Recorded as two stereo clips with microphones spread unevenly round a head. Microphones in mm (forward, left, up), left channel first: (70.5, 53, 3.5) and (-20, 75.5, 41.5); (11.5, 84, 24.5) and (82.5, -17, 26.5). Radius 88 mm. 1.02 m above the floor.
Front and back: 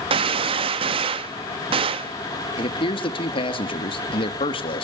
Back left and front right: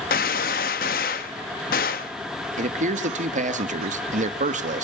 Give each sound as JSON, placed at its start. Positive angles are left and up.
{"t": 0.1, "sound": "a gunshot", "azimuth_deg": 160, "distance_m": 0.7}
{"t": 2.6, "sound": "a man speaking", "azimuth_deg": -35, "distance_m": 1.6}